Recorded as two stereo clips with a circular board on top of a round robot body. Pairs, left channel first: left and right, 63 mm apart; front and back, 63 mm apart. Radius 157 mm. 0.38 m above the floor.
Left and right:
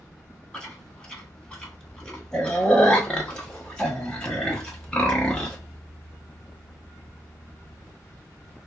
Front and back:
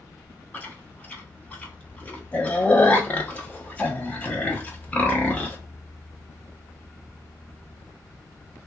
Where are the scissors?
No scissors in this recording.